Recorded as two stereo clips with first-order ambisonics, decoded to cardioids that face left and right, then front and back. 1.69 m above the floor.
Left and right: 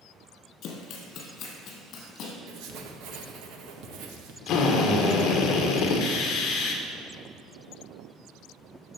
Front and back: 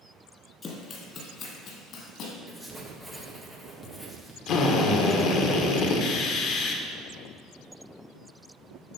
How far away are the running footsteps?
About 2.5 m.